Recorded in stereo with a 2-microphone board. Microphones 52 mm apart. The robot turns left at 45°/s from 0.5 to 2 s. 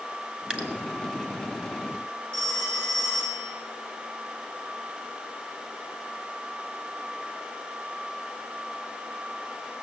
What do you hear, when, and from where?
0.5 s dripping: 20° right (ahead or behind), 1.8 m; by 0.7 s 25° right (ahead or behind), 1.8 m
2.3 s a phone ringing: 20° left (ahead or behind), 3.5 m